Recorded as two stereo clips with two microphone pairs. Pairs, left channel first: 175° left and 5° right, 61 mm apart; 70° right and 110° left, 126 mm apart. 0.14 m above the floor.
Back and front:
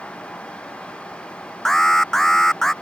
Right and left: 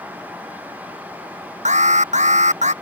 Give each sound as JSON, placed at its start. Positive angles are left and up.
{"t": 1.6, "sound": "an alarm", "azimuth_deg": 95}